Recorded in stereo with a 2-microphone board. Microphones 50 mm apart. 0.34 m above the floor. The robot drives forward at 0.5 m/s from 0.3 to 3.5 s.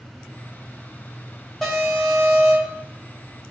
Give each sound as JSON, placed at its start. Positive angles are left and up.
{"t": 1.6, "sound": "an alarm", "side_deg": 0, "distance_m": 2.5}